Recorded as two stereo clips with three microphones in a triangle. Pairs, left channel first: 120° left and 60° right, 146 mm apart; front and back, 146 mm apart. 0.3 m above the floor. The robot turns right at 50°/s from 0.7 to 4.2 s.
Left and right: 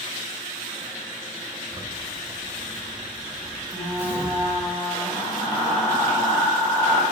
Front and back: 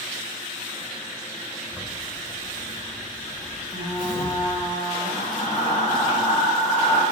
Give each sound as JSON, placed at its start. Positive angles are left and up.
{"t": 1.7, "sound": "a zipper", "azimuth_deg": -105, "distance_m": 0.8}
{"t": 3.7, "sound": "frying", "azimuth_deg": 5, "distance_m": 1.6}